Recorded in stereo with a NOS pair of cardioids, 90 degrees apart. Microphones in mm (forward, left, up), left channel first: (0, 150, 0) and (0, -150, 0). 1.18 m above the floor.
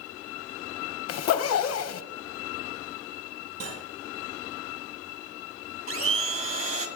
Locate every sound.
1.1 s a zipper: 55° left, 0.8 m
3.6 s cutlery clinking: 50° right, 5.5 m
5.9 s a blender: 45° right, 2 m